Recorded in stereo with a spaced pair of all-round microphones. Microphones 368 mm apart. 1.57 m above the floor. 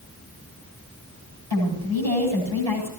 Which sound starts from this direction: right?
A woman speaking, at 1.5 s.